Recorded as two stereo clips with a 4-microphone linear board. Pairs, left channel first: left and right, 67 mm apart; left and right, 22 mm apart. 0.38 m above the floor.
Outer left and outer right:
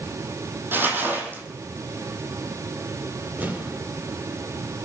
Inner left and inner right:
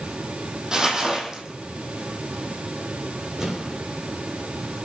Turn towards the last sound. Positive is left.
turn(degrees=-25)  # may be behind; listen again after turning